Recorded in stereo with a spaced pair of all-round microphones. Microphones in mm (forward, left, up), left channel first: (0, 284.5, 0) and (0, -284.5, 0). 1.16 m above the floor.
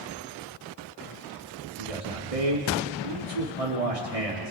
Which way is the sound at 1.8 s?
80° right.